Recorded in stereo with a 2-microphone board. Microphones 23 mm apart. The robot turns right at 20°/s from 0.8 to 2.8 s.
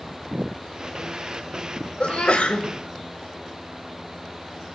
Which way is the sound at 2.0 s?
80° left.